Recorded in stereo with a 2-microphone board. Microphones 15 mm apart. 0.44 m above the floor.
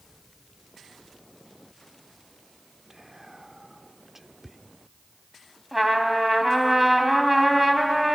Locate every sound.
2.9 s whispering: 10° right (ahead or behind), 0.7 m
5.7 s a trumpet: 20° right (ahead or behind), 2.5 m